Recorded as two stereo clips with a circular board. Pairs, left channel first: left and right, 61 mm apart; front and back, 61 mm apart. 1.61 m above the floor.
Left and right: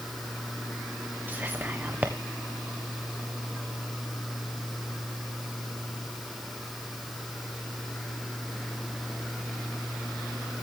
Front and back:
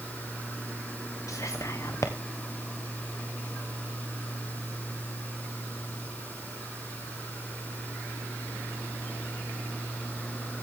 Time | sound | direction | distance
1.3 | whispering | 30° right | 1.1 m